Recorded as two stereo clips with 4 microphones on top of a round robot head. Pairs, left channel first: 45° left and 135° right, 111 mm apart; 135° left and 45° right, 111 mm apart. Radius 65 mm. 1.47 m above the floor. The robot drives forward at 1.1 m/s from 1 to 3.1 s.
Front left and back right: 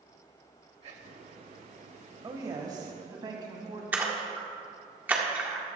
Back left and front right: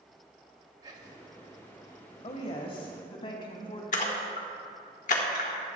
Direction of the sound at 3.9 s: 150° left.